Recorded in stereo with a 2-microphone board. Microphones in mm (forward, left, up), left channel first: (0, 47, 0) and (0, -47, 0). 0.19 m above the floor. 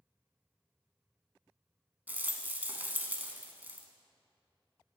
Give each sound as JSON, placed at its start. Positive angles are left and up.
{"t": 2.1, "sound": "a rattle", "side_deg": -20, "distance_m": 0.9}